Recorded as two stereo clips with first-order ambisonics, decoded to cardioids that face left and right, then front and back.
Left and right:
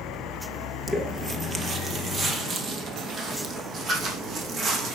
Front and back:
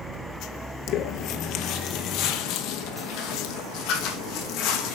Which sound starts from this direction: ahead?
Footsteps, at 0.9 s.